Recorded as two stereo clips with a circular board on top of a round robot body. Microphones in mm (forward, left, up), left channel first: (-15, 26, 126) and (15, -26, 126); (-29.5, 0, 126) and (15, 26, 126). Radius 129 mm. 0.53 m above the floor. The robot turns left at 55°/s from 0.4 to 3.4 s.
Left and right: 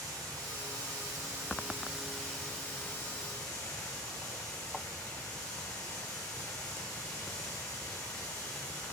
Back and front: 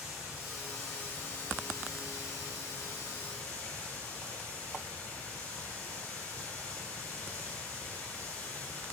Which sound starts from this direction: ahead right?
Running water, at 0.0 s.